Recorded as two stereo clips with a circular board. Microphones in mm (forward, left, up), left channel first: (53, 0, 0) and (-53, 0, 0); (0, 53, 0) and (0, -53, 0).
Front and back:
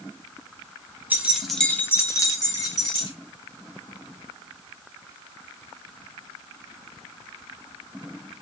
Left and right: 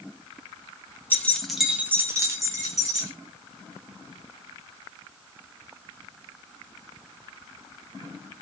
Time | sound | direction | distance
1.1 | keys jangling | 135° left | 0.9 m